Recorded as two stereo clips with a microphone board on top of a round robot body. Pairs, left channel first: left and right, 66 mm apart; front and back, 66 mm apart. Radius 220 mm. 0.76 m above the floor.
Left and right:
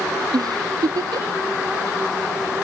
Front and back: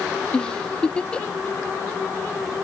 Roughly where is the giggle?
Right.